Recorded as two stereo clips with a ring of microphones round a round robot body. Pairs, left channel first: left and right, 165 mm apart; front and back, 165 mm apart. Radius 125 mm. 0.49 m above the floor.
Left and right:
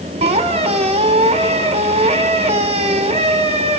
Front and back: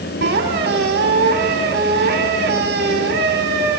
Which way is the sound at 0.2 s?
140° right.